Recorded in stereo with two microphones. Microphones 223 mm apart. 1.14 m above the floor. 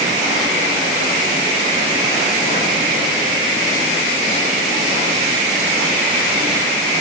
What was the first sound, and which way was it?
Only background noise.